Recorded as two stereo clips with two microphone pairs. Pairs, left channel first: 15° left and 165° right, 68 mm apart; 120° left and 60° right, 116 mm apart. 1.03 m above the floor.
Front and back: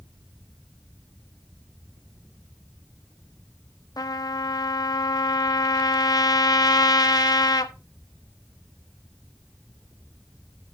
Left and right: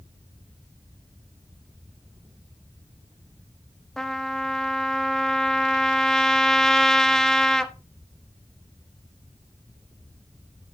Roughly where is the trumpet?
Ahead left.